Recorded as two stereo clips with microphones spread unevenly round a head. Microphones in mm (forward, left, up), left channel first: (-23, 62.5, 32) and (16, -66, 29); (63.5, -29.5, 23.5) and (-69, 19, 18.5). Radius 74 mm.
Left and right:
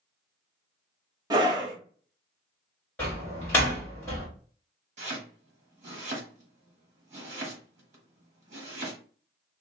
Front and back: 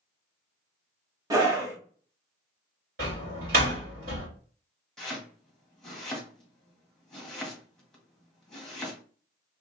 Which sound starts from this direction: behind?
A door slam, at 3.0 s.